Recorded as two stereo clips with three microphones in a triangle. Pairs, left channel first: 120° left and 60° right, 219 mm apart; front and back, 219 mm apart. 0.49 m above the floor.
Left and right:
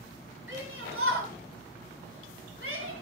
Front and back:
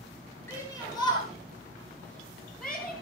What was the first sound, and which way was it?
A shout, 85° right.